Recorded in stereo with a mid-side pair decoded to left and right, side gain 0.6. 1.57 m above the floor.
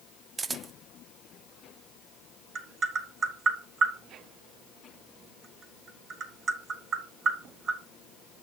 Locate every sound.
0.4 s a camera shutter: 25° right, 0.5 m
2.5 s tapping: 40° right, 3.5 m